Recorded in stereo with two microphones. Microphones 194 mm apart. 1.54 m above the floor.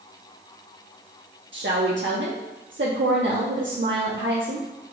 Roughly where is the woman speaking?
Right.